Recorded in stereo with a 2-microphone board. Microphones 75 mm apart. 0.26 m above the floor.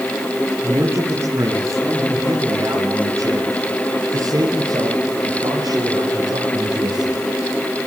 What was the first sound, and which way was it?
A man speaking, 35° right (ahead or behind).